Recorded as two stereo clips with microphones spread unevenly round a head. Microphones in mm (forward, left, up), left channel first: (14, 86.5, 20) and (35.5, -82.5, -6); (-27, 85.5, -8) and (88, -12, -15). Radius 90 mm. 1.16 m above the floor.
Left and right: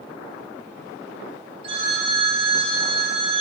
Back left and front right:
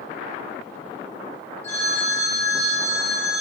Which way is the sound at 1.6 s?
145° right.